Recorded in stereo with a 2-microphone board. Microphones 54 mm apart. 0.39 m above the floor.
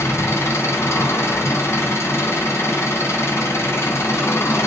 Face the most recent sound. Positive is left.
turn(degrees=65)  # may be behind; listen again after turning